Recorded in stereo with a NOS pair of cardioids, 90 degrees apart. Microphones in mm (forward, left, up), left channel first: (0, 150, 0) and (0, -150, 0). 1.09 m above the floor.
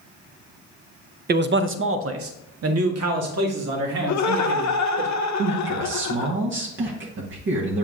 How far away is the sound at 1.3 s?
About 0.7 m.